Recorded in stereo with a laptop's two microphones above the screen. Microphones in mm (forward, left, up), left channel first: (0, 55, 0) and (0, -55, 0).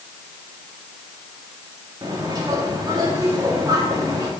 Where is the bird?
35° right (ahead or behind), 2 m.